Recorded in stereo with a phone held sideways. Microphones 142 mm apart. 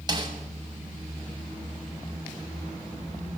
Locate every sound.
0.1 s a snare drum: 30° right (ahead or behind), 7 m